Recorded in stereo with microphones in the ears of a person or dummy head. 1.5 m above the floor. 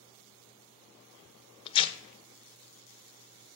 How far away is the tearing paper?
About 0.8 m.